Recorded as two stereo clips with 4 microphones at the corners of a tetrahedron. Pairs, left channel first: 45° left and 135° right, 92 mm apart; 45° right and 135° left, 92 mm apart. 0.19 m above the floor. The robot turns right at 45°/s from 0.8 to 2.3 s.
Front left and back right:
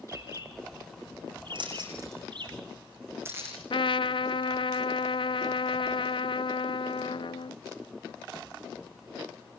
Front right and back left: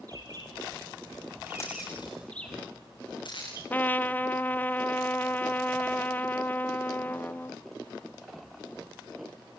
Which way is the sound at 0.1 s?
175° left.